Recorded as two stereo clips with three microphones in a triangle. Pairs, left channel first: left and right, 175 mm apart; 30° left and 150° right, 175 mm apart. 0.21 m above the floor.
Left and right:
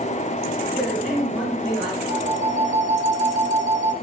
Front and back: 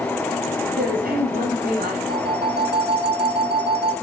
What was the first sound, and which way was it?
A man speaking, 170° right.